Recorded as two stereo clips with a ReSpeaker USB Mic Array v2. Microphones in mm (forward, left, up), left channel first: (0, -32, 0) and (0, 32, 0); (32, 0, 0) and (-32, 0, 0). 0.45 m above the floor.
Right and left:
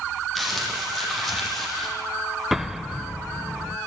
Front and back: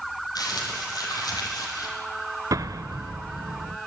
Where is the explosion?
175° left, 0.7 m.